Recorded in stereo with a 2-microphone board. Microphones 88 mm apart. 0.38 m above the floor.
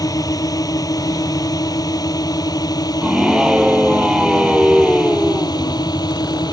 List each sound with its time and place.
0.0 s a drone: 45° left (ahead or behind); by 6.5 s 50° left (ahead or behind)
3.0 s a scream: 5° right (ahead or behind)